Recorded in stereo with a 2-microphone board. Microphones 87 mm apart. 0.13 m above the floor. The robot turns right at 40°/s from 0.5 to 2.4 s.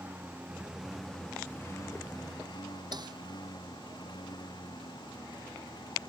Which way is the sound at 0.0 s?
20° right.